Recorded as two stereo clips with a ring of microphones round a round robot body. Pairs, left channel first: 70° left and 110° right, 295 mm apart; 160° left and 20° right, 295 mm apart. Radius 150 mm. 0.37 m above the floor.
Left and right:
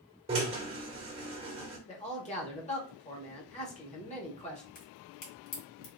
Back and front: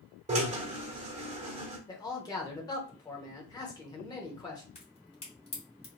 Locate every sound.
0.3 s a drill: 60° right, 1.4 m
1.9 s a man speaking: 100° left, 1.0 m
4.8 s a crack: 90° left, 1.9 m